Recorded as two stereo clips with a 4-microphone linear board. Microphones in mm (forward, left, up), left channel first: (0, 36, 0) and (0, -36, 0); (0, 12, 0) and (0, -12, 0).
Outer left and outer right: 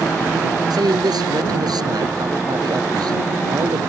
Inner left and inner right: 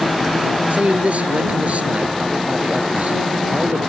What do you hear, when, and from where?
0.7 s a man speaking: 65° right (ahead or behind)